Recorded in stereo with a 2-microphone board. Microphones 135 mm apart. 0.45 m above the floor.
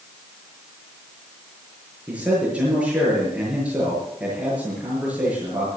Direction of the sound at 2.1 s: 10° right (ahead or behind).